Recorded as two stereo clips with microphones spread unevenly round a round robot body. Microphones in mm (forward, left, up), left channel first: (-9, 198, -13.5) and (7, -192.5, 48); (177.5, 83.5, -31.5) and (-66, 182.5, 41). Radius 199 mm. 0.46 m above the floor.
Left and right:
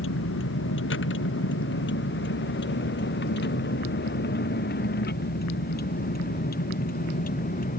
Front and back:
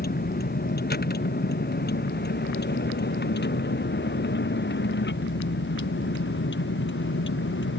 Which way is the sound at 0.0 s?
30° left.